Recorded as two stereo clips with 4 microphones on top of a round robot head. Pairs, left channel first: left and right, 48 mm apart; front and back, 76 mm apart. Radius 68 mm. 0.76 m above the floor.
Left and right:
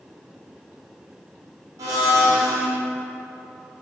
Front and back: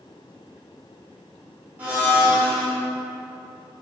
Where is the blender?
105° right, 0.8 m.